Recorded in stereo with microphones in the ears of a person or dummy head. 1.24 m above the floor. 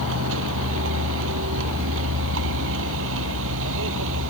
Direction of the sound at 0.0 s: 70° right (ahead or behind).